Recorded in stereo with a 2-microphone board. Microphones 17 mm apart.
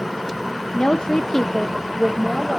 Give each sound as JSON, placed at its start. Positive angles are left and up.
{"t": 0.7, "sound": "a woman speaking", "side_deg": 70, "distance_m": 0.6}